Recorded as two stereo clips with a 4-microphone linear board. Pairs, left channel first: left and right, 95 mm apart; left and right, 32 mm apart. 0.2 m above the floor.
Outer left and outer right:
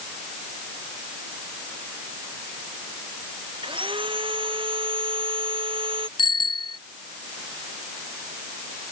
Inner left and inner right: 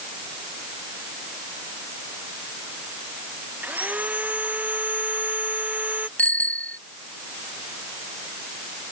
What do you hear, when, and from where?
3.6 s sawing: 65° right (ahead or behind)
6.2 s a bicycle bell: 55° left (ahead or behind)